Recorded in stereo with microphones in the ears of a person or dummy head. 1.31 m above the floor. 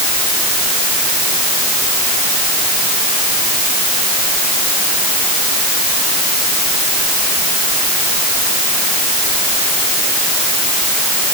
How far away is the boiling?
I don't hear boiling.